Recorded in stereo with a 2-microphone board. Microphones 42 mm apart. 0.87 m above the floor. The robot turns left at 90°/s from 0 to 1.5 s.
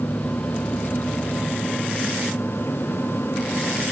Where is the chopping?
No chopping in this recording.